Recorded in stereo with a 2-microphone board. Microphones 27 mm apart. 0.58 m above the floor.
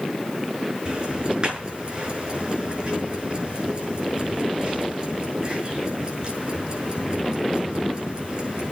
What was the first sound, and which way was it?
Ticking, 40° right (ahead or behind).